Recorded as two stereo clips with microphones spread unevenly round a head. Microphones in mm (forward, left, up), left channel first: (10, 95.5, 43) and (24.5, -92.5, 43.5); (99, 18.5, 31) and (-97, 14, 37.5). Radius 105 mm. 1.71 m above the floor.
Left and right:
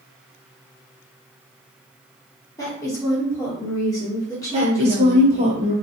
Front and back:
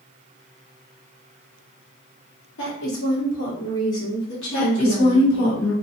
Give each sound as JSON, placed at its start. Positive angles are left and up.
{"t": 2.6, "sound": "a woman speaking", "azimuth_deg": 20, "distance_m": 1.0}
{"t": 4.5, "sound": "a woman speaking", "azimuth_deg": -25, "distance_m": 1.3}